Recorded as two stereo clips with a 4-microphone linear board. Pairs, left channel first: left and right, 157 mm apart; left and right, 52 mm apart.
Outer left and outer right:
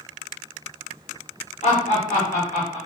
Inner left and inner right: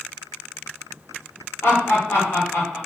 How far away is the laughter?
About 1.1 m.